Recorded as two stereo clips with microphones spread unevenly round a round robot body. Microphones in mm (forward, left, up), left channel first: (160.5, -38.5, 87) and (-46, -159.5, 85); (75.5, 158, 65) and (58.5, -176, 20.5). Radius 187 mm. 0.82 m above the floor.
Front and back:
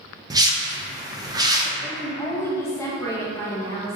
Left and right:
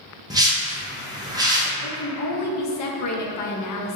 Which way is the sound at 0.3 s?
110° right.